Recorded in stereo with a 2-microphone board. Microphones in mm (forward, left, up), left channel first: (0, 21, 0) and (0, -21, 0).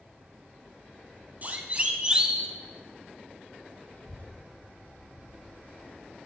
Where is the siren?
40° right (ahead or behind), 2.5 m; by 2.5 s 10° right (ahead or behind), 1.9 m.